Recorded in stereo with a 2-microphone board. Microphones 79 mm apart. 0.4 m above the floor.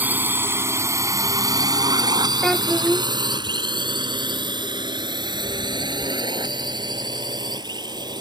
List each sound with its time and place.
0.0 s a drone: 20° right (ahead or behind); by 8.2 s 65° right (ahead or behind)
2.4 s a child speaking: 5° left (ahead or behind)